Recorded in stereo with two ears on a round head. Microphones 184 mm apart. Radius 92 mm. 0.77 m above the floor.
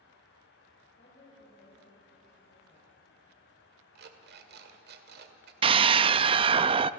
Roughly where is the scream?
Right.